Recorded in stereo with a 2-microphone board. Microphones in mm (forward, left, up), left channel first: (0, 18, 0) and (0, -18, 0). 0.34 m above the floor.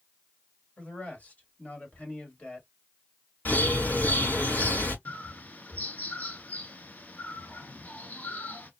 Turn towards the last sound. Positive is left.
turn(degrees=50)  # may be behind; listen again after turning